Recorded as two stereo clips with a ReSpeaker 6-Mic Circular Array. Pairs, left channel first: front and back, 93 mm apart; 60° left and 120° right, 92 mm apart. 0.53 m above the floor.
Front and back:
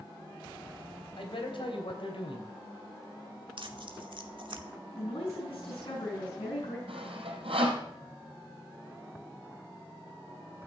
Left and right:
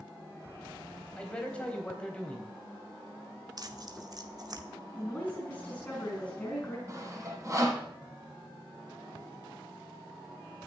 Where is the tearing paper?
160° right, 1.5 m.